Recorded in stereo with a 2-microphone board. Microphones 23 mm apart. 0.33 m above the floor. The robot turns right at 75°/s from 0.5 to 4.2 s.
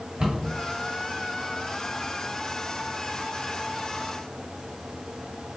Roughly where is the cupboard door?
Right.